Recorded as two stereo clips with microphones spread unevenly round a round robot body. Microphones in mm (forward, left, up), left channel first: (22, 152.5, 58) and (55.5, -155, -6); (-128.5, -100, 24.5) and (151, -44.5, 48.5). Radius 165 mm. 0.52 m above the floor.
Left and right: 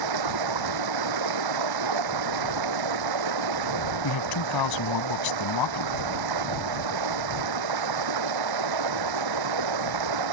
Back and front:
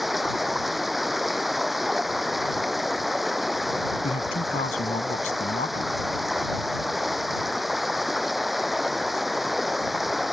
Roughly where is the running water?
Right.